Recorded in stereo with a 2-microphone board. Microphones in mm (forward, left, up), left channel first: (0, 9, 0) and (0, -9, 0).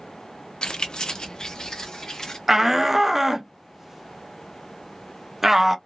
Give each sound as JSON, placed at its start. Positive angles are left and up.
{"t": 0.6, "sound": "keys jangling", "side_deg": 50, "distance_m": 0.5}
{"t": 2.5, "sound": "a shout", "side_deg": -20, "distance_m": 0.5}